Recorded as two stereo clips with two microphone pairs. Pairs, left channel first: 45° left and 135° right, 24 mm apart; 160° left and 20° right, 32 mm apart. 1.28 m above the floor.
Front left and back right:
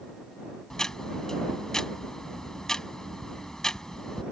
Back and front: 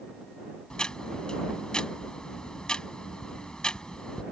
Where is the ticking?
105° left.